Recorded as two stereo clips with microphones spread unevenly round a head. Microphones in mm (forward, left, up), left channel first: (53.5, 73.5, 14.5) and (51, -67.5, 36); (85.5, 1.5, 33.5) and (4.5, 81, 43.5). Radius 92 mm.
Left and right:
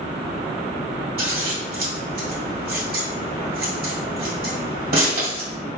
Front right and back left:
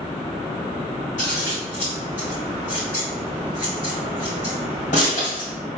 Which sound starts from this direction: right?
Scissors, at 1.2 s.